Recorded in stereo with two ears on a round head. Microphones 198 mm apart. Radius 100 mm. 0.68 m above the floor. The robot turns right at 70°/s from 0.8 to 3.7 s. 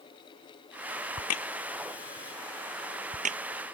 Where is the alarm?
I don't hear an alarm.